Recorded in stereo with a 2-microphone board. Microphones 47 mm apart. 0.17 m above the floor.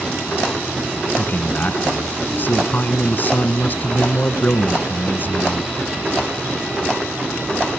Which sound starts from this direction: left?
A man speaking, at 1.2 s.